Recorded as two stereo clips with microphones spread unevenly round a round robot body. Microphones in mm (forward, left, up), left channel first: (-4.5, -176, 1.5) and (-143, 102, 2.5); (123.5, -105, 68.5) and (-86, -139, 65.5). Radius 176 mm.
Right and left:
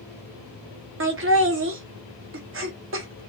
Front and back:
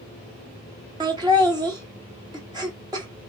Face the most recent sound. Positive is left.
turn(degrees=130)